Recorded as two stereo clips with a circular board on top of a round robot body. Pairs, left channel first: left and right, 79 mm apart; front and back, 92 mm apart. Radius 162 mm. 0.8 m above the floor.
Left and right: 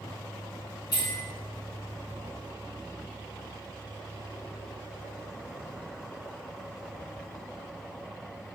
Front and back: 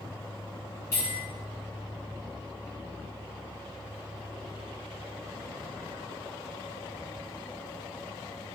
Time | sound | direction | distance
0.9 | a bell | 60° left | 1.2 m